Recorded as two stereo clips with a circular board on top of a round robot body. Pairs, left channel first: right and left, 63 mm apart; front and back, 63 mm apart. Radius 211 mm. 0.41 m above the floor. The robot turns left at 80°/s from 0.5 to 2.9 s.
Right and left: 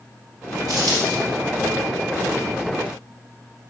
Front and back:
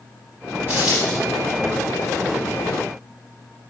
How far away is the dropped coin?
About 2.5 m.